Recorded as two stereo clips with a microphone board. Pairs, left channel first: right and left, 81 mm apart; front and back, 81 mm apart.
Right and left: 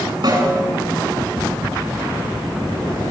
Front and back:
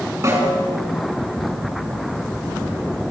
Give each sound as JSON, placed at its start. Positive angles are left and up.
{"t": 0.2, "sound": "a snare drum", "azimuth_deg": 120, "distance_m": 8.5}